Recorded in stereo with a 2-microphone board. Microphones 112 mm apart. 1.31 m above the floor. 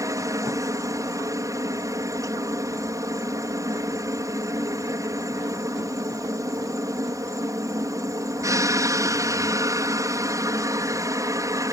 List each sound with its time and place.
0.0 s a helicopter: 30° right (ahead or behind)